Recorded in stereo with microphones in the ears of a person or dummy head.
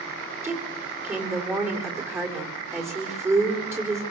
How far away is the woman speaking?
About 4.5 m.